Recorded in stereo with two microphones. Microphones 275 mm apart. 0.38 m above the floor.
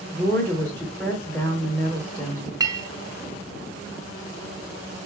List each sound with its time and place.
0.1 s a woman speaking: 5° left (ahead or behind), 1.0 m
2.6 s a clink: 15° right (ahead or behind), 0.6 m